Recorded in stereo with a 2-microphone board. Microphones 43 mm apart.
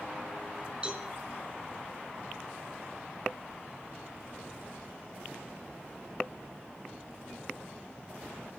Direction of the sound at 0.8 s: 20° right (ahead or behind).